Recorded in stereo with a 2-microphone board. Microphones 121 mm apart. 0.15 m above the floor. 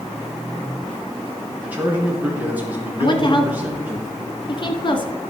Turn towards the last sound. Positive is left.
turn(degrees=40)  # may be behind; listen again after turning